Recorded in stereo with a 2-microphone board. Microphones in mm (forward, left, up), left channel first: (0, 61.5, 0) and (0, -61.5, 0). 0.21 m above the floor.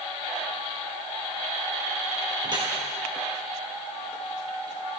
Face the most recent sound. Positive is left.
turn(degrees=-40)  # may be behind; listen again after turning